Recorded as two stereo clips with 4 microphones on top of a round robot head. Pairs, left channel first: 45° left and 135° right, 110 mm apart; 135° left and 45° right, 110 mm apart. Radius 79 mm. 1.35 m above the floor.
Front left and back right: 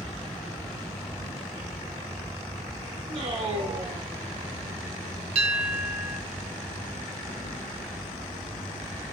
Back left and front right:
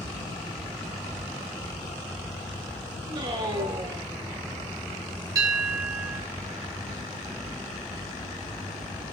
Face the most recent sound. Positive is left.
turn(degrees=-105)